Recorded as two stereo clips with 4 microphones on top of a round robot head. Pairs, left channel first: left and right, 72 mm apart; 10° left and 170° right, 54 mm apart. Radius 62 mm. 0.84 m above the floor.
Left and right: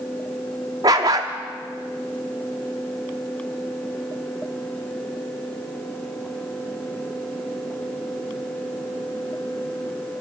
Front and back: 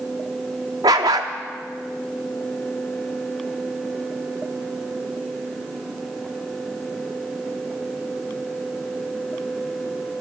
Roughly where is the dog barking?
Behind right.